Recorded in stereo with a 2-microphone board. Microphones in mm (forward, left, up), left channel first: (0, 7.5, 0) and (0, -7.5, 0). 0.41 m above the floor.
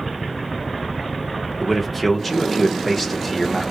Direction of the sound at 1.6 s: 15° left (ahead or behind).